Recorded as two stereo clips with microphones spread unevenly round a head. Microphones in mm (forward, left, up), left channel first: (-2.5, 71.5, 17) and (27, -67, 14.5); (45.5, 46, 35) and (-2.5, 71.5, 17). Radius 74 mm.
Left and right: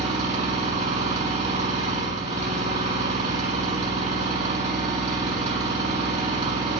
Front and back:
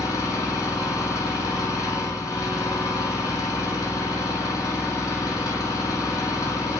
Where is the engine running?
35° right, 3 m.